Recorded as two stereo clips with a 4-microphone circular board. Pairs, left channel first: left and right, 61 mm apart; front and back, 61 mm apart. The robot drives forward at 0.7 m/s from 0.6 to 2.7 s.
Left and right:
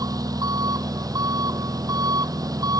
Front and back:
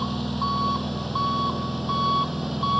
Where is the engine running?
90° right.